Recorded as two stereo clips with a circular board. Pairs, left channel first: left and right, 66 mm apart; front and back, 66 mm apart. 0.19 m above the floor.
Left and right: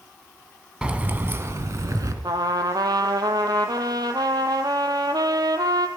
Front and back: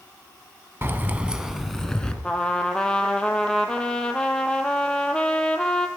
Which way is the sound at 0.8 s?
155° right.